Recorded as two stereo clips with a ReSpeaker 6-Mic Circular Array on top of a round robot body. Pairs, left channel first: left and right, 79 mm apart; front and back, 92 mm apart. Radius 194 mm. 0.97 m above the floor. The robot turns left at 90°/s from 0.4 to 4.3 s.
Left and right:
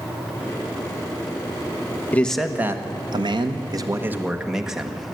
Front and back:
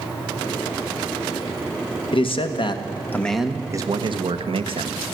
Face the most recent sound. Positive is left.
turn(degrees=-175)